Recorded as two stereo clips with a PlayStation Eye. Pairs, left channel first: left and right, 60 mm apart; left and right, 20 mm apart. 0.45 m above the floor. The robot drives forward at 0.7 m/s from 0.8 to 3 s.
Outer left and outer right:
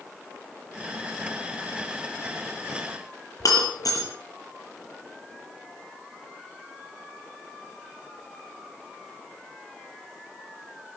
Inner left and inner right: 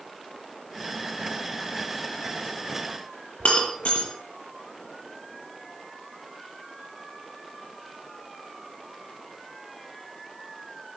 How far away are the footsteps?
I don't hear footsteps.